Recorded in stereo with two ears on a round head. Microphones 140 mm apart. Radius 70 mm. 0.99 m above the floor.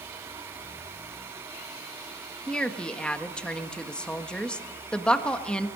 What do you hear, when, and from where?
2.5 s a woman speaking: 5° left (ahead or behind), 1.5 m